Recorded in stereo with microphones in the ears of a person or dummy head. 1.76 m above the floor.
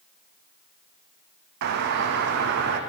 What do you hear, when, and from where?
1.6 s a doorbell: 55° right (ahead or behind), 0.6 m